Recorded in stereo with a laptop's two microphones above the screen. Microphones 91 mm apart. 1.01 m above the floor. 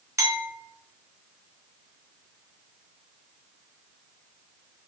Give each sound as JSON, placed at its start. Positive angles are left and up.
{"t": 0.2, "sound": "a clink", "side_deg": -30, "distance_m": 1.0}